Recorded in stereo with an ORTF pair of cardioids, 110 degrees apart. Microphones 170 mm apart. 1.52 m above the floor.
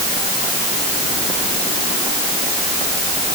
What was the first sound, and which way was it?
Only background noise.